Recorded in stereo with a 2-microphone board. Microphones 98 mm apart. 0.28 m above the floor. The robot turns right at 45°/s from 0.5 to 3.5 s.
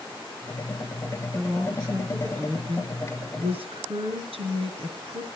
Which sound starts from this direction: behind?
A woman speaking, at 1.3 s.